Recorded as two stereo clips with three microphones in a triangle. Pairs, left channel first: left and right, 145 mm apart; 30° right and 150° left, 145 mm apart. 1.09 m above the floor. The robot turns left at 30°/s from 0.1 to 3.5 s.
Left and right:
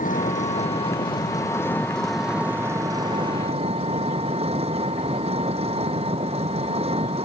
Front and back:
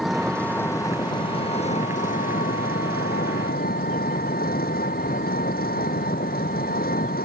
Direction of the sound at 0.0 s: 60° left.